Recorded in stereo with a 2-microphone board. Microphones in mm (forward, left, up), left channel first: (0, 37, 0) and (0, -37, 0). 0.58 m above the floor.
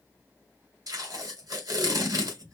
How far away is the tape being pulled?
About 1.8 m.